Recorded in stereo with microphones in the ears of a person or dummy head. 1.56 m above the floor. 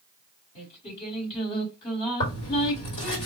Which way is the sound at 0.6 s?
40° left (ahead or behind).